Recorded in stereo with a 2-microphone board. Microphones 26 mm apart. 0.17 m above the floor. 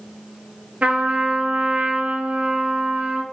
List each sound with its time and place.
0.8 s a trumpet: 70° right (ahead or behind), 0.5 m